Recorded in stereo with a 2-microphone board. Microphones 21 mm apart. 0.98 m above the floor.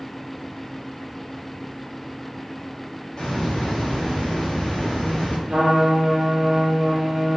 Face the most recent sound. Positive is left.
turn(degrees=-60)  # may be behind; listen again after turning